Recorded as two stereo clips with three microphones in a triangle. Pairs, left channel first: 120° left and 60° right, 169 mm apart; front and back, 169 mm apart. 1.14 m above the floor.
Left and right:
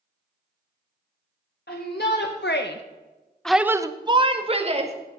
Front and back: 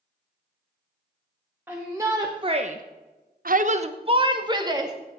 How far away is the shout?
About 1.4 m.